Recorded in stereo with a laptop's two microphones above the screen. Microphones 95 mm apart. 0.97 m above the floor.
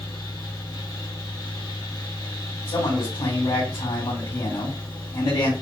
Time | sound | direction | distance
0.0 | a fan | 45° left (ahead or behind) | 1.0 m
2.7 | a man speaking | 60° left (ahead or behind) | 1.5 m